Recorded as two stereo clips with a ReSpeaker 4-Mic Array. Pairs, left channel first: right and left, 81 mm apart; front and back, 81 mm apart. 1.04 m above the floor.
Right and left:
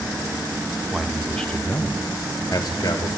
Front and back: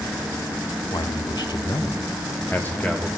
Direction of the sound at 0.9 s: 5° left.